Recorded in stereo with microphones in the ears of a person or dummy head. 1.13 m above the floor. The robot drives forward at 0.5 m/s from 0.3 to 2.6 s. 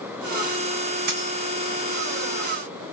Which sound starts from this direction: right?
A dropped coin, at 1.1 s.